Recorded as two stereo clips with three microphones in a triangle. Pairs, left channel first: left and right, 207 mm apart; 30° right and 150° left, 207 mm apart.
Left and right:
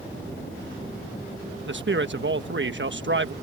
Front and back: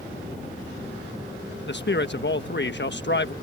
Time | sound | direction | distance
1.7 | a man speaking | 60° right | ?